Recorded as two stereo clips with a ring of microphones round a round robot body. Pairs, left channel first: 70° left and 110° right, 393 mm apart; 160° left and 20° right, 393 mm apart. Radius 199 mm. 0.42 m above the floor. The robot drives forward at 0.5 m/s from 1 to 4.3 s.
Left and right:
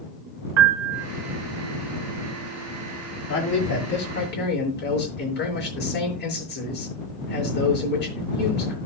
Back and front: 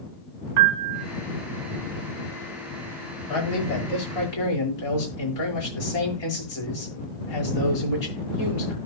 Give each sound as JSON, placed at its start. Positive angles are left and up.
{"t": 0.6, "sound": "a piano", "azimuth_deg": -65, "distance_m": 0.9}
{"t": 3.3, "sound": "a man speaking", "azimuth_deg": 130, "distance_m": 7.0}